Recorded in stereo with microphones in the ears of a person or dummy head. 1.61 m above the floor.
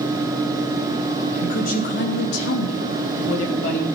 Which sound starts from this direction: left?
A woman speaking, at 1.3 s.